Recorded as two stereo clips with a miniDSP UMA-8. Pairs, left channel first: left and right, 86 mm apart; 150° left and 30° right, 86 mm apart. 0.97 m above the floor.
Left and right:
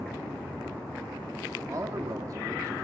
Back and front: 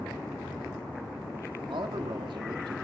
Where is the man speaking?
45° right, 1.4 m.